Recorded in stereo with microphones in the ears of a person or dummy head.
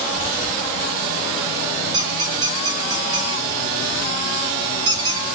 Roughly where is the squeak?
Right.